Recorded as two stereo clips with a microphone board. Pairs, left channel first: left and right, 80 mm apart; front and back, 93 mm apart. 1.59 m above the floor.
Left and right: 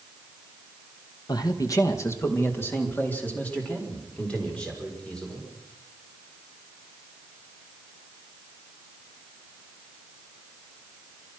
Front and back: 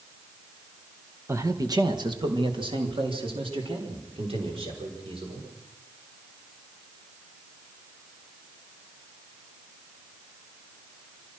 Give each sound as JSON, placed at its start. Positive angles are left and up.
{"t": 1.3, "sound": "a man speaking", "azimuth_deg": 120, "distance_m": 1.6}